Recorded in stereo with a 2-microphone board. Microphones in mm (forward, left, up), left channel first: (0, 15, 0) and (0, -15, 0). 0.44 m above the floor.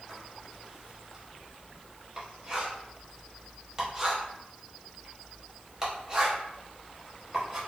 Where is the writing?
20° right (ahead or behind), 0.9 m.